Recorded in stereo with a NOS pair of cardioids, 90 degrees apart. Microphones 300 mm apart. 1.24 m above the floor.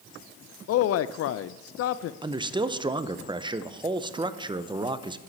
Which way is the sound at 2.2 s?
15° right.